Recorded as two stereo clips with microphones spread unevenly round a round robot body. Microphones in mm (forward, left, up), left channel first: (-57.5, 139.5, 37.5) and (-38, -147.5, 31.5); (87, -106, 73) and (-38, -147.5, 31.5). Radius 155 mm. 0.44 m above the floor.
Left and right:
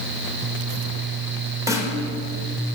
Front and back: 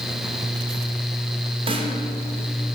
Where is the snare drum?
165° right, 1.6 m.